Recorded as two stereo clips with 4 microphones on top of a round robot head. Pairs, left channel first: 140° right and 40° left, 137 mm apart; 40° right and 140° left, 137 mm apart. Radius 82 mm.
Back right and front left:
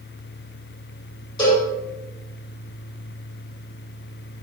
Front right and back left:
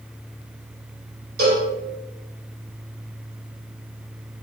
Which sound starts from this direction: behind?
A cowbell, at 1.4 s.